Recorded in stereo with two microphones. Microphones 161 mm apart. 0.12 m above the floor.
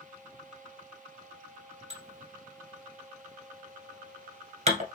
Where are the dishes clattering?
45° right (ahead or behind), 1.4 m.